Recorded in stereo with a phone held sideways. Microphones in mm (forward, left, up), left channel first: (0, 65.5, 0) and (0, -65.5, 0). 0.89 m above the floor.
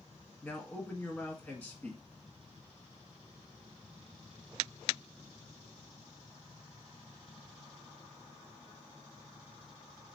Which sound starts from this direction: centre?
A man speaking, at 0.4 s.